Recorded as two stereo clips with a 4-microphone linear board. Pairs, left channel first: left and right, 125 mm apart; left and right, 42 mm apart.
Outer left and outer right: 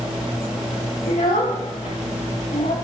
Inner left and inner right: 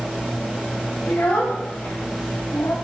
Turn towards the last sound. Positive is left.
turn(degrees=85)